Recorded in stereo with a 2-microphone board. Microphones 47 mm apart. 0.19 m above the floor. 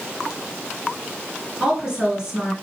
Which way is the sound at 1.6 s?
15° right (ahead or behind).